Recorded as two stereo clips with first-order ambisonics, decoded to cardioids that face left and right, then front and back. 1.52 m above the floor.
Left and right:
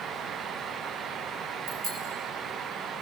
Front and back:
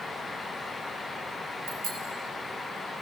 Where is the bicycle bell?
140° right, 4 m.